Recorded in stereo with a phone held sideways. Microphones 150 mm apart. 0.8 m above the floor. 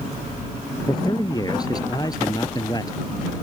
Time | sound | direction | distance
0.9 | a man speaking | 25° left (ahead or behind) | ?